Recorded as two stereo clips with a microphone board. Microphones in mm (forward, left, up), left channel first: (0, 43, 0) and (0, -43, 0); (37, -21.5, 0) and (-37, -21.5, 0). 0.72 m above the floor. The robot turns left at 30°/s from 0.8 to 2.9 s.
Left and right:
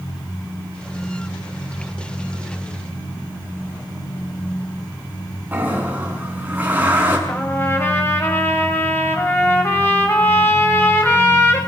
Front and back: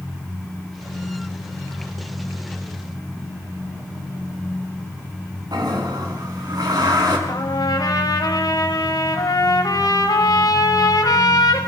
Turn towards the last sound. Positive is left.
turn(degrees=25)